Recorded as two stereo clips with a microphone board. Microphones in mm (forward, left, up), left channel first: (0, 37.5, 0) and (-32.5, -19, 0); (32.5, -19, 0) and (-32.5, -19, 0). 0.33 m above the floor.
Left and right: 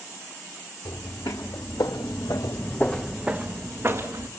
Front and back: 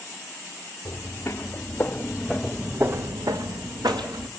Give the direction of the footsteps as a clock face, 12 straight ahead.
10 o'clock.